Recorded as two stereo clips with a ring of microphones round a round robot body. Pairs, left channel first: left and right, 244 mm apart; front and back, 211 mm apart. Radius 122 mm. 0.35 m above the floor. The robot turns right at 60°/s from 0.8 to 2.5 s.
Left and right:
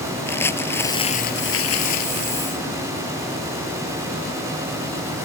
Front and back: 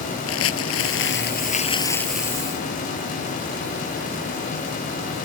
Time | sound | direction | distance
0.3 | crumpling | 10° left | ?